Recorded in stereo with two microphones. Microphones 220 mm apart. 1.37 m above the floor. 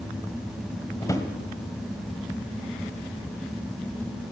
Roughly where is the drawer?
Centre.